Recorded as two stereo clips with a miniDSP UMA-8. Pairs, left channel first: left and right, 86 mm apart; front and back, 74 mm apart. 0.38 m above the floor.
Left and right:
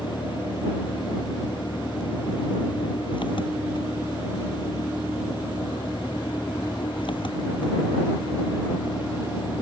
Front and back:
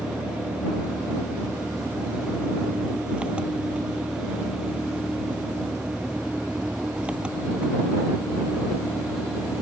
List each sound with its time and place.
0.0 s an engine running: 105° left